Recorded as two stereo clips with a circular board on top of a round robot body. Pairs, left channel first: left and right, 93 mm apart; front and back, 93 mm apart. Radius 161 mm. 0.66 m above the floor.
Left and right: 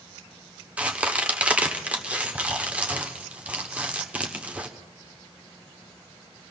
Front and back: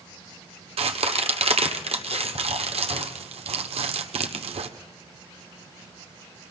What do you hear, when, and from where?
0.8 s a crack: 165° right, 1.1 m